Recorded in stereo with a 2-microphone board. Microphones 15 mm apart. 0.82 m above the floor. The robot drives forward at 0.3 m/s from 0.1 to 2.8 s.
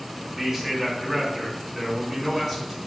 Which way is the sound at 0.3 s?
15° right (ahead or behind).